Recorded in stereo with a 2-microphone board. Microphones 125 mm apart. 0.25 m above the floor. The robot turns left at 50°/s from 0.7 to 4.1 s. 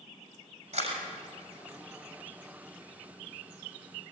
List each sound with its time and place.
0.7 s a camera shutter: 55° right (ahead or behind), 6 m; by 1.0 s 45° right (ahead or behind), 6 m